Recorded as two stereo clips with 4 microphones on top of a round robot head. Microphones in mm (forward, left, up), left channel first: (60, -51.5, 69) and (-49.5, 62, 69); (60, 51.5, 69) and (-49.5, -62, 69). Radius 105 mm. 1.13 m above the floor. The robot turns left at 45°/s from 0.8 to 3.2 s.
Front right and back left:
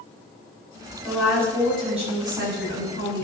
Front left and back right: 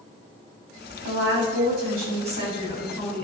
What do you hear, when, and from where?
1.0 s a woman speaking: 130° right, 4.5 m; by 3.2 s 130° left, 4.5 m